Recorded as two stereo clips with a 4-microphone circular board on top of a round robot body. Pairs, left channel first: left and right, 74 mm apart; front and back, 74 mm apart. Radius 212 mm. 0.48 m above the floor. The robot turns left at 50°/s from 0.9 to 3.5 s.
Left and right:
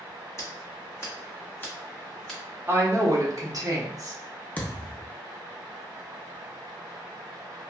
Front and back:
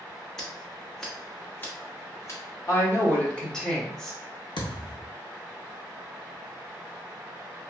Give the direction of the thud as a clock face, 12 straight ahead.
11 o'clock.